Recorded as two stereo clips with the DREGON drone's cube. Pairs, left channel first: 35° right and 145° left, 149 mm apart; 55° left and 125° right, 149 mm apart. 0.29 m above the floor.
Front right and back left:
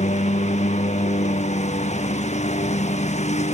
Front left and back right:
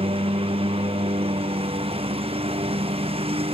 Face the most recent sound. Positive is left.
turn(degrees=-75)